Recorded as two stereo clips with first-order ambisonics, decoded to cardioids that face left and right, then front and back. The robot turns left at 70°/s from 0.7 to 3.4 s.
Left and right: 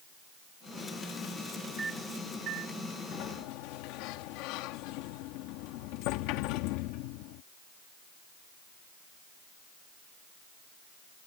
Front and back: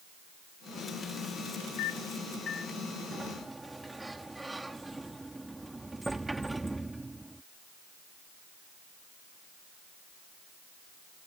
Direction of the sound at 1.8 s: 10° right.